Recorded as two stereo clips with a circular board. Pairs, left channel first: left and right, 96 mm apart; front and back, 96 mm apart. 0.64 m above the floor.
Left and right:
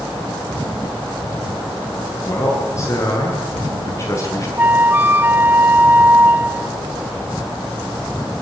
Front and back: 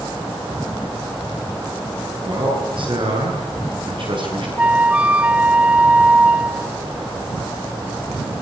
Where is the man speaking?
145° left, 9 m.